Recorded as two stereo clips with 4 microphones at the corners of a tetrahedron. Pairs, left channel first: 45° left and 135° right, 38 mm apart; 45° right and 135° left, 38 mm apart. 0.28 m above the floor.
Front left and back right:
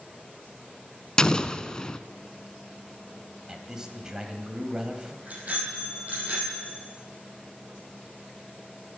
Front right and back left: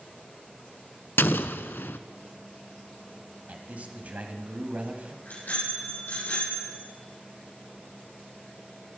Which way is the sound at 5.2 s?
85° right.